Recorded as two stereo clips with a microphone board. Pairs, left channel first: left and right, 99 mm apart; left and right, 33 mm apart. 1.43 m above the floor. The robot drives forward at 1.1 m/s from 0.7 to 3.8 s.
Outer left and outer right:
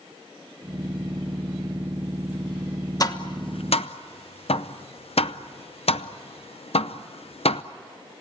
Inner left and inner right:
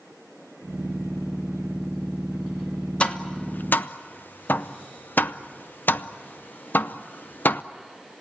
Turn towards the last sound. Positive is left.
turn(degrees=80)